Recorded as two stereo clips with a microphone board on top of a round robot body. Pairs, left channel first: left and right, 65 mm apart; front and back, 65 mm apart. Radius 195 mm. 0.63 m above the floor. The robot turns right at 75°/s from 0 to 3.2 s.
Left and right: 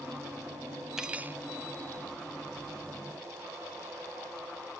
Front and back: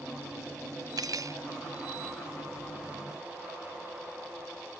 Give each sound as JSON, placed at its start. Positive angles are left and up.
{"t": 1.0, "sound": "cutlery clinking", "azimuth_deg": -175}